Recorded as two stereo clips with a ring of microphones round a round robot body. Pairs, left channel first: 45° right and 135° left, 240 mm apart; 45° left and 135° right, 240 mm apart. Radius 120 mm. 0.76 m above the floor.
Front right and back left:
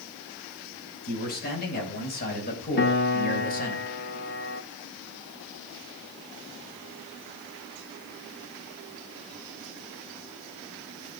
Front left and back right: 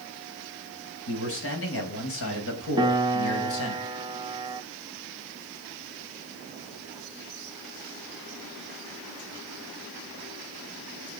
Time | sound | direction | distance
1.1 | a man speaking | 10° left | 4.5 m
2.8 | a piano | 70° right | 0.9 m